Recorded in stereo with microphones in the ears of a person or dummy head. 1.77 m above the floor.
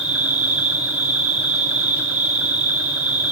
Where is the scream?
No scream in this recording.